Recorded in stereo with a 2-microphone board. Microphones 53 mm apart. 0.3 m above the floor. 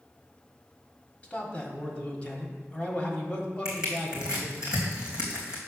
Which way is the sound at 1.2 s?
25° left (ahead or behind).